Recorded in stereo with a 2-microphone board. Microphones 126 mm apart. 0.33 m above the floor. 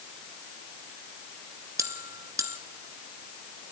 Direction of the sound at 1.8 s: 25° right (ahead or behind).